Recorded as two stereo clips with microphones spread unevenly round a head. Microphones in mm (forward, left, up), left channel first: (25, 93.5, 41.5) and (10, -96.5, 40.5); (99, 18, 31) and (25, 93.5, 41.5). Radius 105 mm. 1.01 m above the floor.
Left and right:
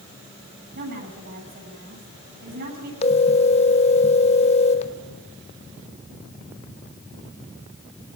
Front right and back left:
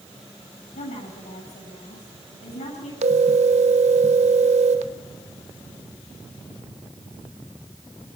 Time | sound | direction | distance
0.8 | a woman speaking | 60° right | 8.5 m
3.0 | a phone ringing | 145° left | 0.9 m